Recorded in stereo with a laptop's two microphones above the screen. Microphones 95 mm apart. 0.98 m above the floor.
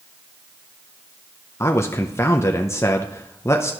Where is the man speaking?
30° left (ahead or behind), 0.5 m.